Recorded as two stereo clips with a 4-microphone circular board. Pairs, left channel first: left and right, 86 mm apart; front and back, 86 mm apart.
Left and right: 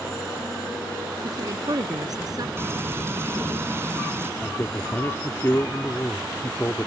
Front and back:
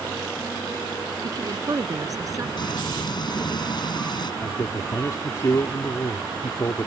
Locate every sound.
1.2 s a woman speaking: 135° right; by 2.5 s 130° right
2.6 s frying: 30° right
4.4 s a man speaking: 35° left